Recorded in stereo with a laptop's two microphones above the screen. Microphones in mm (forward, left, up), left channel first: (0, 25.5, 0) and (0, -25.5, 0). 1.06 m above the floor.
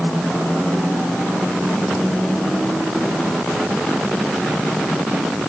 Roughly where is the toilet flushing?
No toilet flushing in this recording.